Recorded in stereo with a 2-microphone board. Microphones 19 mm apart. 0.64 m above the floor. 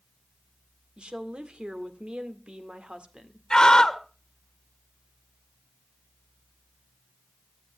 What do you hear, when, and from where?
1.0 s a woman speaking: 60° right (ahead or behind), 1.9 m
3.5 s a scream: 35° left (ahead or behind), 2.0 m